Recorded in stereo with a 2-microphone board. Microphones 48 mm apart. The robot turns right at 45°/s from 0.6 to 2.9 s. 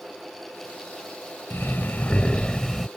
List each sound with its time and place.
1.5 s breathing: 120° left; by 2.9 s straight behind